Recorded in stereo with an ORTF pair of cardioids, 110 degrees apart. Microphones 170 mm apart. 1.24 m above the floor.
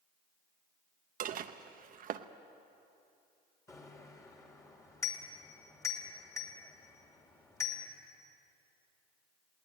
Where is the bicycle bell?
20° left, 3 m.